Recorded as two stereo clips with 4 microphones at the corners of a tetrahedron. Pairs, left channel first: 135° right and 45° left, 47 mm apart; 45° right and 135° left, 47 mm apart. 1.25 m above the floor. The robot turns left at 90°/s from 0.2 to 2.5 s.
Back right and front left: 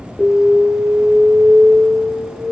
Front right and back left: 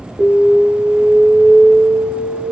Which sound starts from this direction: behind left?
An alarm, at 0.2 s.